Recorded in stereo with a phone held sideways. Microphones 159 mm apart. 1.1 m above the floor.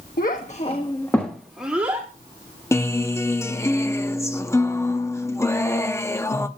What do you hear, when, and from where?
0.2 s a child speaking: 70° left (ahead or behind), 1.1 m; by 2.1 s 15° right (ahead or behind), 2 m
2.7 s a guitar: 15° left (ahead or behind), 0.7 m